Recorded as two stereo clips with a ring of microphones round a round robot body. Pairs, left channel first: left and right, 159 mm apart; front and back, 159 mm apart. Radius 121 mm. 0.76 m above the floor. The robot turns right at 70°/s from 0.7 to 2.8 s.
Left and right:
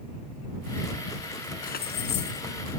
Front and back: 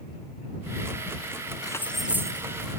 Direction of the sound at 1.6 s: 65° left.